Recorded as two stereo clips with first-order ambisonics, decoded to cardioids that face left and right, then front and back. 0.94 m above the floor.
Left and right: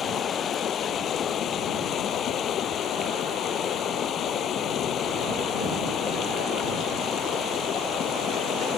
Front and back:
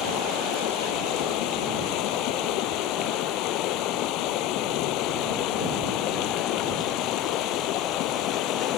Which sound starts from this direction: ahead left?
Running water, at 0.0 s.